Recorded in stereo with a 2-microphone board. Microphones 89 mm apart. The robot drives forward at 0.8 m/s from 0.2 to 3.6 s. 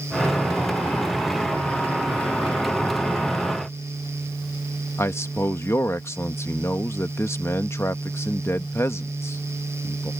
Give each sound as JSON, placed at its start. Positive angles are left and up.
{"t": 5.0, "sound": "a man speaking", "side_deg": 25}